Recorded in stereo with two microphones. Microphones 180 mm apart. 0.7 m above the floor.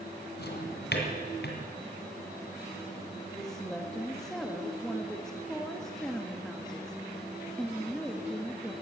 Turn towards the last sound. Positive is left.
turn(degrees=5)  # may be behind; listen again after turning